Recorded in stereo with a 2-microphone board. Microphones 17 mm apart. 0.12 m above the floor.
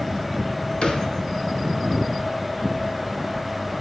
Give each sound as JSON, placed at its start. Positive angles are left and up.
{"t": 0.8, "sound": "a thud", "side_deg": 75, "distance_m": 1.4}